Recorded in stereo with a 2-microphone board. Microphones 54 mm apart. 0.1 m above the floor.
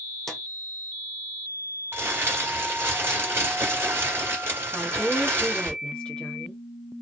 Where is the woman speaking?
15° left (ahead or behind), 1.6 m.